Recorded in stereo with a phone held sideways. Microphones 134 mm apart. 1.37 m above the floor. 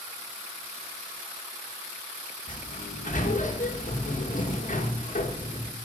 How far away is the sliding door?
About 1.2 m.